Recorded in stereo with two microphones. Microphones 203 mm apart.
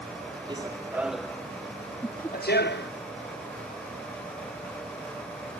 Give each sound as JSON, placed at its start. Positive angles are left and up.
{"t": 0.5, "sound": "running footsteps", "side_deg": -25}
{"t": 2.0, "sound": "laughter", "side_deg": 10}